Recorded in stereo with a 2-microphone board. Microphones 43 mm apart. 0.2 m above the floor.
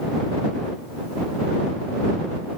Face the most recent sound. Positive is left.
No sound to turn to.